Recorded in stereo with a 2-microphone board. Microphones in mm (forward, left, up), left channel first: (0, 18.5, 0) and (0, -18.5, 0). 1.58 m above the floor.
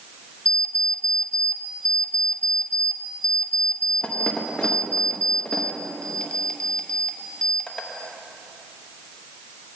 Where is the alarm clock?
20° left (ahead or behind), 0.9 m.